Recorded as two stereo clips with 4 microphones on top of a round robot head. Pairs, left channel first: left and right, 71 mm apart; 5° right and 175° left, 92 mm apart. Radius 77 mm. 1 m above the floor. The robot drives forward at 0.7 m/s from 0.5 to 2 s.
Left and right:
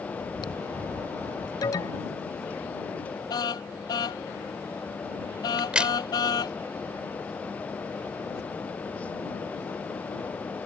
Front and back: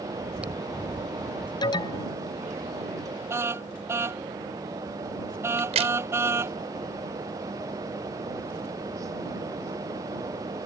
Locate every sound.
0.2 s chewing: 100° left; by 1.5 s 105° left
1.6 s an alarm: 40° left
3.3 s a car horn: 115° left
5.6 s a crack: 165° right